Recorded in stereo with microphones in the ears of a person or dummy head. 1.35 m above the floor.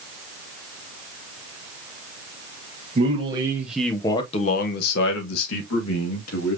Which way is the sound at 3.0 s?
35° right (ahead or behind).